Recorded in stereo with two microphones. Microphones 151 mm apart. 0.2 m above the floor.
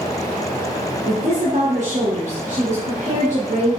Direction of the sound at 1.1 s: 60° right (ahead or behind).